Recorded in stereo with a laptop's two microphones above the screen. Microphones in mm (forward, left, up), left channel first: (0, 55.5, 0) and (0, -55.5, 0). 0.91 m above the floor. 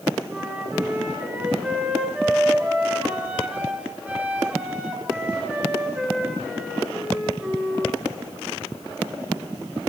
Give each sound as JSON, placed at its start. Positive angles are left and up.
{"t": 0.3, "sound": "a flute", "side_deg": -10, "distance_m": 3.0}